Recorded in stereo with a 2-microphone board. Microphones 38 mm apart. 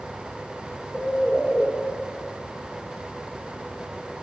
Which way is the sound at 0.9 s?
10° left (ahead or behind).